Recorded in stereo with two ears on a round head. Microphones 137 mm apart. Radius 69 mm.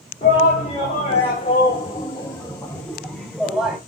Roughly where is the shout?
Left.